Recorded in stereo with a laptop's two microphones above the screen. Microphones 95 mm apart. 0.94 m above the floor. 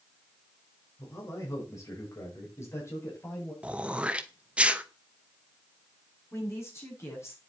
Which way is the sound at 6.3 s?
30° left (ahead or behind).